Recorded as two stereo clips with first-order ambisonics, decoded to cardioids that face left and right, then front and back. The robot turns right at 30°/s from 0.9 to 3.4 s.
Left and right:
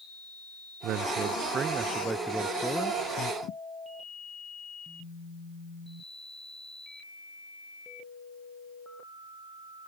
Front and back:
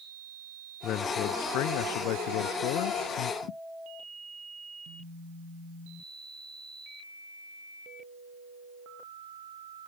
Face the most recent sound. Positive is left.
turn(degrees=40)